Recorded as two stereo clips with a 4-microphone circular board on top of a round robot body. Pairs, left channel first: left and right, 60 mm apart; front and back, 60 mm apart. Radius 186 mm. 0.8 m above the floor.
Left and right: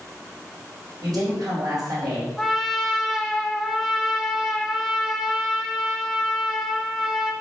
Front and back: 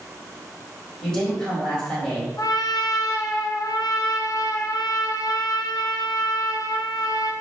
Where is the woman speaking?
80° right, 4 m.